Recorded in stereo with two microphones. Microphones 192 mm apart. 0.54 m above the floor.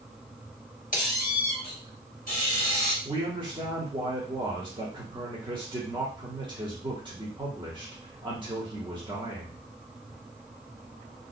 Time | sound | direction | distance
0.9 | a squeak | 45° left (ahead or behind) | 0.9 m
3.0 | a man speaking | 25° right (ahead or behind) | 1.1 m